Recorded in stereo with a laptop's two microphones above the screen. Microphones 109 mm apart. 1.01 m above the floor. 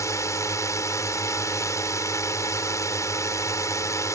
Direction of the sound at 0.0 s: 25° left (ahead or behind).